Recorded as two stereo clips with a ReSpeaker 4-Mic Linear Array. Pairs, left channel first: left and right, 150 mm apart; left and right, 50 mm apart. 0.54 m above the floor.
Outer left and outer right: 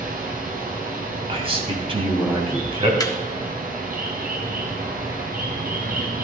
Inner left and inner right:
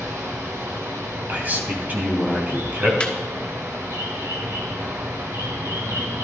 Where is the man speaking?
40° right (ahead or behind), 3 m.